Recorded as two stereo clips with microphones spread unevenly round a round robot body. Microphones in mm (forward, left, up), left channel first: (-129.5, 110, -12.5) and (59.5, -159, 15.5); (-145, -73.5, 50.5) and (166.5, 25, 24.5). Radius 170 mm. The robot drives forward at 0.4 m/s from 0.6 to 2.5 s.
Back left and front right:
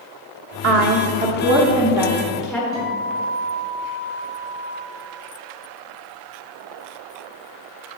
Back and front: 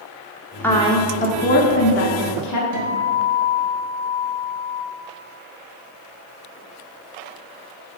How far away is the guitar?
About 1.8 m.